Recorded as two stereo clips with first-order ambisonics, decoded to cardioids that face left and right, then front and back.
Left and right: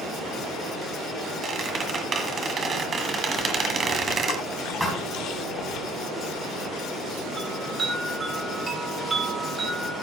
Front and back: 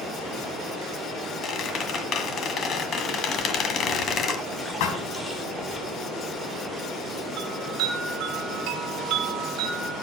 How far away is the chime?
About 2 m.